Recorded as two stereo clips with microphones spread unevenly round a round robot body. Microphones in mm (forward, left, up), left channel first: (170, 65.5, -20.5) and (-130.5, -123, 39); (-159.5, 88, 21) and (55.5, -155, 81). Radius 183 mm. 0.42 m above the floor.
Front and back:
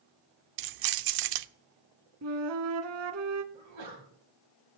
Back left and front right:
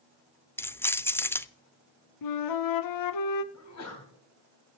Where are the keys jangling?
160° right, 0.6 m.